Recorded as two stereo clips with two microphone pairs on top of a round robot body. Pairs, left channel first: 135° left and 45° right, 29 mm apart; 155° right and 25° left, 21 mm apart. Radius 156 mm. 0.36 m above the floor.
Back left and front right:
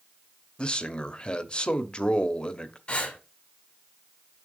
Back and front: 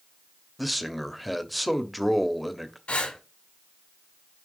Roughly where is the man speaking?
Behind left.